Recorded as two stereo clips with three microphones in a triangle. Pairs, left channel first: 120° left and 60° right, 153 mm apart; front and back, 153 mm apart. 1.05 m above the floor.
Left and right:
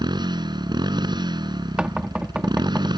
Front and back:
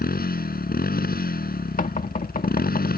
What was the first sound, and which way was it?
A motorcycle, straight ahead.